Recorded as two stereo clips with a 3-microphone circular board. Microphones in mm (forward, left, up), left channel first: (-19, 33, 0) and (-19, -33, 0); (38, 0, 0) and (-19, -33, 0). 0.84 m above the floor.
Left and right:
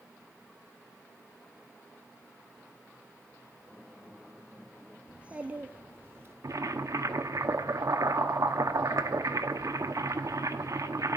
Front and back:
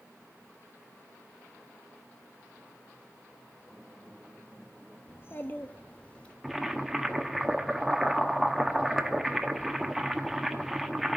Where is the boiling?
65° right, 0.9 m.